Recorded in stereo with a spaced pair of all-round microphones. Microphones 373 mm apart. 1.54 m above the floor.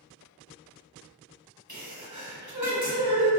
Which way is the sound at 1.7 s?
50° right (ahead or behind).